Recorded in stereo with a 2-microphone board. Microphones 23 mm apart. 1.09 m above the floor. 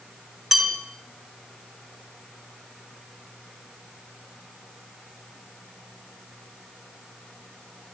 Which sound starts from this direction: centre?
A bell, at 0.5 s.